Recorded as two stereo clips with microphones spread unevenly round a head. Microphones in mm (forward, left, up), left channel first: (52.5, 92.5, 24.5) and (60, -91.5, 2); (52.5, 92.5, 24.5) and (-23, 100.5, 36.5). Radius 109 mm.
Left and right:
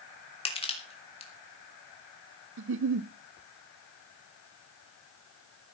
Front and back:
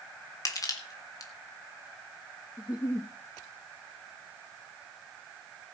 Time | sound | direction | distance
0.5 | crushing | 35° left | 3.5 m
2.6 | a giggle | 70° right | 0.7 m